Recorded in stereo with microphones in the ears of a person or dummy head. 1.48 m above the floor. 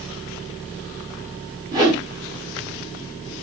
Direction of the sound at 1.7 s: 20° right (ahead or behind).